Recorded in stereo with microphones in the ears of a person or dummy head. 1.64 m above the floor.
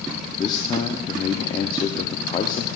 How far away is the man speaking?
About 0.5 m.